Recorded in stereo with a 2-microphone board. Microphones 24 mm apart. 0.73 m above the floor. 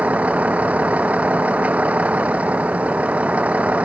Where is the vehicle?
85° right; by 3.9 s 80° right.